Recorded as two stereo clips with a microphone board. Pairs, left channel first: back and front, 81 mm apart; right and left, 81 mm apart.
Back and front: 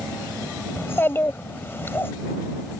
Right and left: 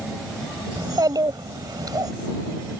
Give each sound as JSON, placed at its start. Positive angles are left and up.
{"t": 0.8, "sound": "a child speaking", "azimuth_deg": 120}